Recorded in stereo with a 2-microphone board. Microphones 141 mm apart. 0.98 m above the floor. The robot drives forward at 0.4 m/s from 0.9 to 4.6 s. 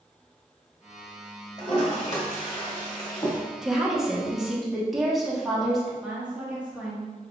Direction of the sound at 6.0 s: 10° right (ahead or behind).